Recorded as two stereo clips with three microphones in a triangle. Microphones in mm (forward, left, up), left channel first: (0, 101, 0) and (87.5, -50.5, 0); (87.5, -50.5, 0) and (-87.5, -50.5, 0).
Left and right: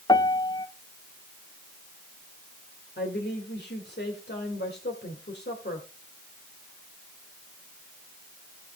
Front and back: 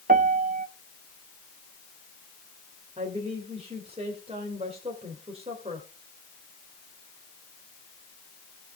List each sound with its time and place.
0.1 s a piano: straight behind, 0.9 m
3.0 s a woman speaking: 125° left, 2 m